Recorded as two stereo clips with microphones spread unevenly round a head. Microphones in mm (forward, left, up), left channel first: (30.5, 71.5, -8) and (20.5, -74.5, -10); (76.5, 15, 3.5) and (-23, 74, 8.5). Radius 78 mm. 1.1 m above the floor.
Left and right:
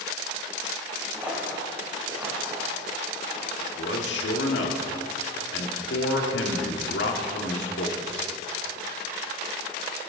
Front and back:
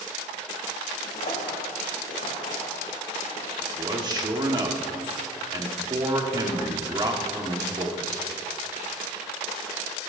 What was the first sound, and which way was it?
Footsteps, 10° right.